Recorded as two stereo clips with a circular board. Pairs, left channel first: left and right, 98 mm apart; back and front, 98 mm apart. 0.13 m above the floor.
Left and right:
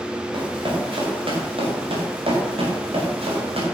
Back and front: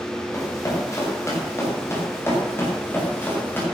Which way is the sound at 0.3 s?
125° right.